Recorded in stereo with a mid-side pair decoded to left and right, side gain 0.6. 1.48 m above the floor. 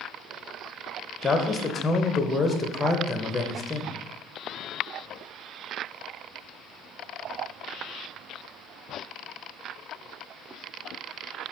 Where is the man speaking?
25° left, 0.7 m.